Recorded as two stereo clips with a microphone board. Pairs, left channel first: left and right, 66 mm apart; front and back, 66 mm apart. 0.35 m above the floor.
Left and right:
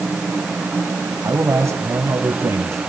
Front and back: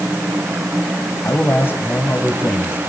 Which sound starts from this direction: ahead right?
A man speaking, at 1.2 s.